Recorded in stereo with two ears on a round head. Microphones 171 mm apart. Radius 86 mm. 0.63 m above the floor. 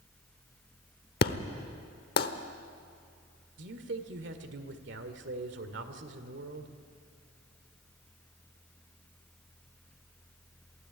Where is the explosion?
55° left (ahead or behind), 1.1 m.